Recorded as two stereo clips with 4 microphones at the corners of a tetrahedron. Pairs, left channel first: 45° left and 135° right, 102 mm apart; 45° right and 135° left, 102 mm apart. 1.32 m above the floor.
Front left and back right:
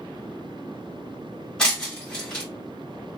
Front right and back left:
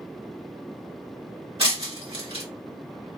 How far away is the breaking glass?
About 1.8 m.